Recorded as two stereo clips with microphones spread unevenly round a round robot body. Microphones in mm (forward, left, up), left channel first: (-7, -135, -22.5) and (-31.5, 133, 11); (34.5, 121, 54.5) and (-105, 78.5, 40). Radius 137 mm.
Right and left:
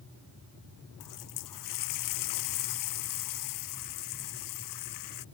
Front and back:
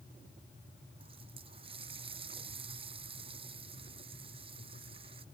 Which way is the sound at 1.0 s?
95° right.